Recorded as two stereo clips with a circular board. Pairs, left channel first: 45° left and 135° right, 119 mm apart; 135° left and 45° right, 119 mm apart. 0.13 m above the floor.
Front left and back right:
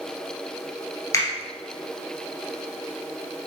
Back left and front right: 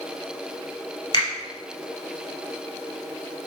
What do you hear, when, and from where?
1.1 s a finger snap: 100° left, 1.6 m